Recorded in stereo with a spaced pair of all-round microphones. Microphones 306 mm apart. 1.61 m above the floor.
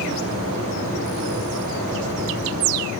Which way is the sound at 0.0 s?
75° right (ahead or behind).